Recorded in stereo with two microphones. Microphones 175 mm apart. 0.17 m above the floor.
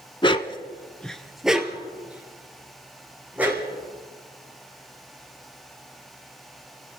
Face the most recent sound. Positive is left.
turn(degrees=-10)  # may be behind; listen again after turning